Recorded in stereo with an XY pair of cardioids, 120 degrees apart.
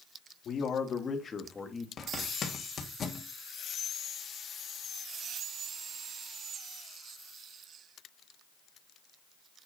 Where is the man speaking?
45° left, 3 m; by 1.9 s 10° left, 2.5 m.